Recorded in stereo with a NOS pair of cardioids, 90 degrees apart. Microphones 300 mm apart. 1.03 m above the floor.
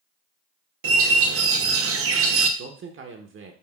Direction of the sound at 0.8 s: 50° right.